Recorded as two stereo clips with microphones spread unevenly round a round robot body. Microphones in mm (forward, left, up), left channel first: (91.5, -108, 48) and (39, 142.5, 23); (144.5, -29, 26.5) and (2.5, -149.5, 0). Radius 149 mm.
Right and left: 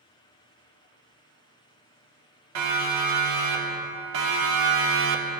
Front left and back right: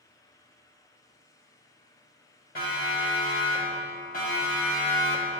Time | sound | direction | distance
2.5 | a siren | 105° left | 4 m